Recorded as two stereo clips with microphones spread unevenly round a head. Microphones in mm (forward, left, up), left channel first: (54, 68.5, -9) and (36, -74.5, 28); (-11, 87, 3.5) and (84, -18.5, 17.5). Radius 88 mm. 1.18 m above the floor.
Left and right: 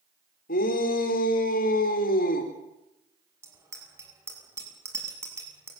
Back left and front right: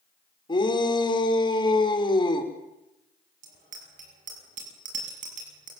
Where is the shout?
80° left, 4.5 m.